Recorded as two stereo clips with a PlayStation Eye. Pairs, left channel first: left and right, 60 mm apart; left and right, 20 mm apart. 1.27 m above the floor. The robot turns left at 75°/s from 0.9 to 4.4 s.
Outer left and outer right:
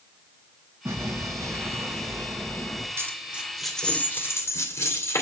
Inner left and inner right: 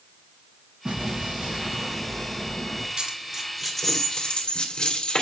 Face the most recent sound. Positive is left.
turn(degrees=50)  # may be behind; listen again after turning